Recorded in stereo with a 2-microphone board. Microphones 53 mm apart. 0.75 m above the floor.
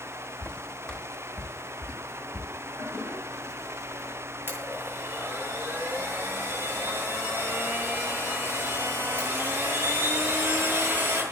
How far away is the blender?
About 9 m.